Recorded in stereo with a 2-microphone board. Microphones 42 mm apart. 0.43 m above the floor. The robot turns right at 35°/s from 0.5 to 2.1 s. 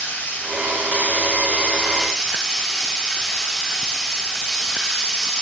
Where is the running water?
115° left, 2.5 m; by 5.4 s 170° left, 2.5 m.